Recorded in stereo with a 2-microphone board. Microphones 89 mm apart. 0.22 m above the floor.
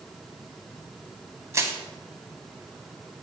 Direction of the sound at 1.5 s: 35° right (ahead or behind).